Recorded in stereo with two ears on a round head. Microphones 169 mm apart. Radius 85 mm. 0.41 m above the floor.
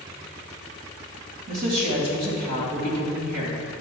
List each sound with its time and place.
1.5 s a woman speaking: 50° right (ahead or behind), 2 m